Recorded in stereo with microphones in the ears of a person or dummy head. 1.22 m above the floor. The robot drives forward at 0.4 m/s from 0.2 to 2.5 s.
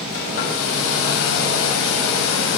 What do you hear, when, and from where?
0.1 s a hair dryer: 70° left (ahead or behind), 2.5 m